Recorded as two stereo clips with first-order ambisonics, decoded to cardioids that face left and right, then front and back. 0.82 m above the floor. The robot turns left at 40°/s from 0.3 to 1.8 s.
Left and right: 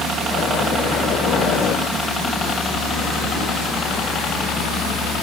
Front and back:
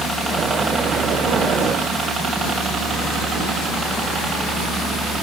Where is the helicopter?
85° right; by 5.2 s 110° left.